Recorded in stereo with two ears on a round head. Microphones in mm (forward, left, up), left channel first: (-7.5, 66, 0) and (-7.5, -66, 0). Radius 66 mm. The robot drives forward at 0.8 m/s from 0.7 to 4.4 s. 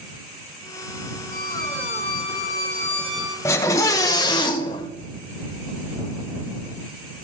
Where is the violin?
70° left (ahead or behind), 3 m; by 3.4 s 55° left (ahead or behind), 3.5 m.